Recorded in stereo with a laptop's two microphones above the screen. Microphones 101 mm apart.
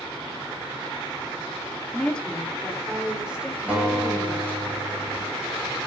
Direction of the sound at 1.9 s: 15° left (ahead or behind).